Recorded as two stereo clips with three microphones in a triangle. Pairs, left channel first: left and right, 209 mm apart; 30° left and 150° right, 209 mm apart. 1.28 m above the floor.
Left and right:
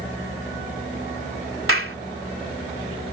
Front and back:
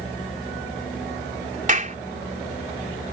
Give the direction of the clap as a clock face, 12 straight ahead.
3 o'clock.